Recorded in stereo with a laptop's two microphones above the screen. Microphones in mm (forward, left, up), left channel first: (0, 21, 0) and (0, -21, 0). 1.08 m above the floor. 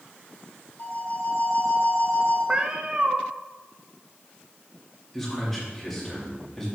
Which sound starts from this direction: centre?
A man speaking, at 5.1 s.